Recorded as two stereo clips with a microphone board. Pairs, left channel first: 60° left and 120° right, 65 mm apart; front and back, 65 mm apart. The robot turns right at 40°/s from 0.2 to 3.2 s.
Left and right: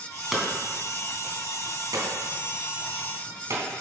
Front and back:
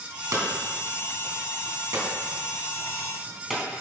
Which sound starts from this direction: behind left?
Hammering, at 0.3 s.